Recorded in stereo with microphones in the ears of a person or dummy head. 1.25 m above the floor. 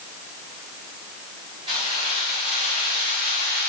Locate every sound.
1.7 s keys jangling: 30° right (ahead or behind), 4.5 m; by 3.7 s 45° right (ahead or behind), 5.5 m